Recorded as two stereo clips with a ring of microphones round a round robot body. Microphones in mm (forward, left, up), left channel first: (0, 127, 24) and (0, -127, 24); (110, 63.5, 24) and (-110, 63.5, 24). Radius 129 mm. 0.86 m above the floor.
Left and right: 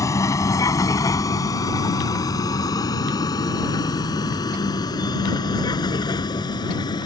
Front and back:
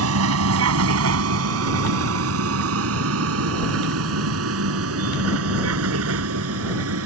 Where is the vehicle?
170° left; by 7.1 s 165° left.